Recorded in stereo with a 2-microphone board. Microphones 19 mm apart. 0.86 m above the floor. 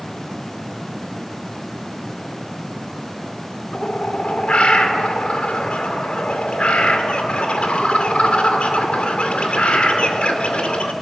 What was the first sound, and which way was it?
A bird, 75° left (ahead or behind).